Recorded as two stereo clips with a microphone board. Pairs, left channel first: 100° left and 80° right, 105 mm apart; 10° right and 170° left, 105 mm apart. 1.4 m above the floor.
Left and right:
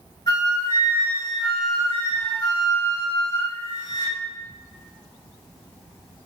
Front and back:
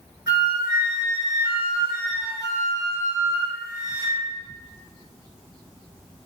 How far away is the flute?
About 1.9 m.